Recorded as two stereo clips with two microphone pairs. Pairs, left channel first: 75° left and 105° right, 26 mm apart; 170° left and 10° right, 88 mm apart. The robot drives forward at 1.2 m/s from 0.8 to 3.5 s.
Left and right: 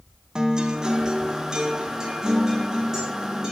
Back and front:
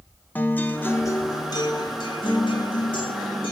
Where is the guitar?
130° right, 0.9 m; by 3.5 s 175° right, 3.5 m.